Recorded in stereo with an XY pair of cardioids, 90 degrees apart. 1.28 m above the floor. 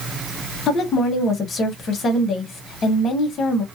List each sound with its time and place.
0.7 s a woman speaking: 65° left, 1.2 m